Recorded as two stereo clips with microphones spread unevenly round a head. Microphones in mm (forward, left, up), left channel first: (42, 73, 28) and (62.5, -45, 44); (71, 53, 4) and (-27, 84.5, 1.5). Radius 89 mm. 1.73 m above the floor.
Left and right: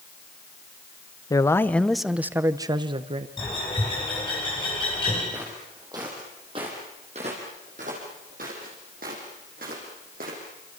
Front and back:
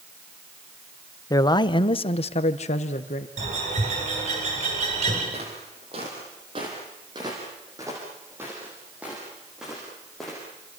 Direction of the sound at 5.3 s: 155° right.